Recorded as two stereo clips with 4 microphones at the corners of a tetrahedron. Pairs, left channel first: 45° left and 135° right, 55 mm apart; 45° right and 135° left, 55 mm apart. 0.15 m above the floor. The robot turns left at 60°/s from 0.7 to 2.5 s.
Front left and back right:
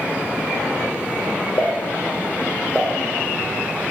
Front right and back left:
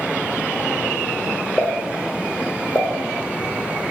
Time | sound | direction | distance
1.6 | a pop | 30° left | 0.5 m